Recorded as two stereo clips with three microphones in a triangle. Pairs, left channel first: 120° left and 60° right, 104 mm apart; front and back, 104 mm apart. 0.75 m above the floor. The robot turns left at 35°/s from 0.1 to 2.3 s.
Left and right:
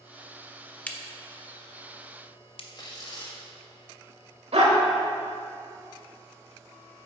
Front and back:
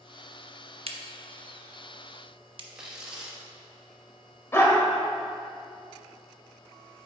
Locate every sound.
0.9 s a crack: 165° right, 0.6 m; by 2.6 s 145° left, 0.6 m
2.8 s tearing paper: 100° left, 1.2 m
4.5 s a dog barking: 65° right, 1.0 m